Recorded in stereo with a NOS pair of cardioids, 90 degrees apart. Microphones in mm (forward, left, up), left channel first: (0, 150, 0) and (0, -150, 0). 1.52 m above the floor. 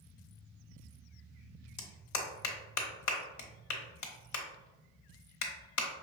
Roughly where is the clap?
Left.